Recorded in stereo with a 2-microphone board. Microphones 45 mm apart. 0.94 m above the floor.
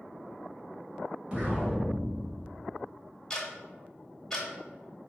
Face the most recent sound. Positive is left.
turn(degrees=15)  # may be behind; listen again after turning